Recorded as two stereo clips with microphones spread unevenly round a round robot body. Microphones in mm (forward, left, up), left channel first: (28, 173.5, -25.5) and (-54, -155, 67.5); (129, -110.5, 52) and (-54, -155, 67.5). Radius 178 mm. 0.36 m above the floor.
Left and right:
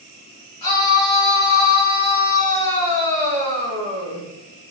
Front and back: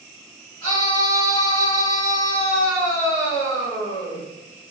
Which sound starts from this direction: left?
A scream, at 0.6 s.